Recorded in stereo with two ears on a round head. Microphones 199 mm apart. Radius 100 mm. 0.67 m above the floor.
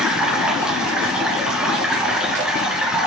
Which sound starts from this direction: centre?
Running water, at 0.0 s.